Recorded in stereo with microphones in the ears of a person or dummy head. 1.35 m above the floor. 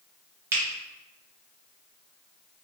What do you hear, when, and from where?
0.5 s a finger snap: 20° right (ahead or behind), 0.9 m